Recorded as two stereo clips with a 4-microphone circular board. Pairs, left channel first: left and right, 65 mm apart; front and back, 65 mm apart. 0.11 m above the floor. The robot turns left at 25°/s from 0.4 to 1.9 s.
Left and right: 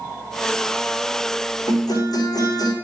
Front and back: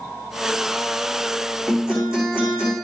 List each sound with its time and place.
1.7 s a guitar: 110° left, 6 m; by 2.7 s 105° left, 6 m